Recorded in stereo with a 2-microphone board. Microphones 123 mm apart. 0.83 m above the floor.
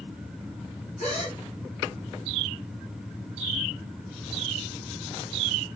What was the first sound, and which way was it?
A gasp, 80° left.